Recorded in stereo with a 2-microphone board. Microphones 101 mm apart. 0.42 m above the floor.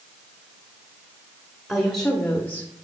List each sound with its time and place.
1.7 s a woman speaking: centre (ahead or behind), 1.5 m; by 2.7 s 25° left (ahead or behind), 1.1 m